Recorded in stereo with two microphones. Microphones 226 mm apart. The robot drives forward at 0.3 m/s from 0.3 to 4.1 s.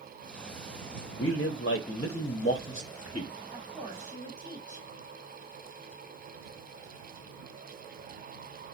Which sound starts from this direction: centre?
A woman speaking, at 3.5 s.